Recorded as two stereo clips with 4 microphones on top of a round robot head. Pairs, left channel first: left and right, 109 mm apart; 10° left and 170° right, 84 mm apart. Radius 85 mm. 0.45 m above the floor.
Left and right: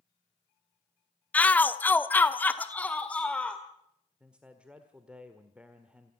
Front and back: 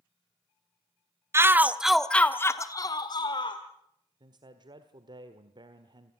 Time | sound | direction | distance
1.3 | a shout | 160° left | 1.2 m
4.2 | a man speaking | 170° right | 1.4 m